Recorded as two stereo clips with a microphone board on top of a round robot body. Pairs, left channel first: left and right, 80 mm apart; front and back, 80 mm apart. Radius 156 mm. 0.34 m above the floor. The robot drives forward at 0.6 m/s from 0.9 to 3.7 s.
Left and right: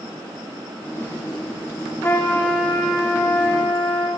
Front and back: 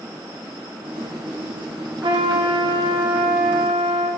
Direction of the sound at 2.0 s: 155° left.